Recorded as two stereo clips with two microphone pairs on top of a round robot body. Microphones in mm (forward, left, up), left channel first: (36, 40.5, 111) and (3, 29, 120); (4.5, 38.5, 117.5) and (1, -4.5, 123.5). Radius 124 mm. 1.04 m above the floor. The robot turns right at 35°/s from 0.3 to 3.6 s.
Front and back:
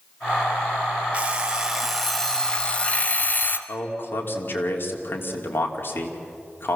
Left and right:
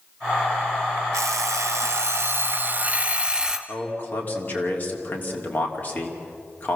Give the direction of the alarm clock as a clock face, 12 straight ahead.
3 o'clock.